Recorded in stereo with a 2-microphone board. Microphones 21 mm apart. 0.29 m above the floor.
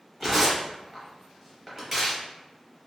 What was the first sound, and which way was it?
Tearing paper, 10° right (ahead or behind).